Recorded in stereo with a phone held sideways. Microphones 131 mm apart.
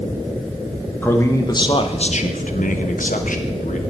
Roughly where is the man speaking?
Centre.